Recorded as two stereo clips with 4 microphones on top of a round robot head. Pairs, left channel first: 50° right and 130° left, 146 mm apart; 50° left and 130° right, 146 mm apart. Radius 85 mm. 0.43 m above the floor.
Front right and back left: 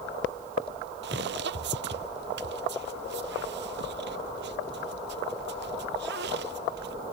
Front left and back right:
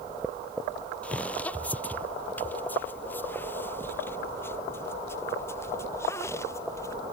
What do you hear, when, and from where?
1.0 s footsteps: 130° left; by 6.9 s 125° left